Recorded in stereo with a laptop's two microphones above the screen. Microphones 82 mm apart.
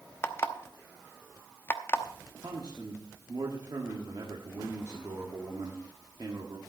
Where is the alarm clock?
30° left (ahead or behind), 0.8 m.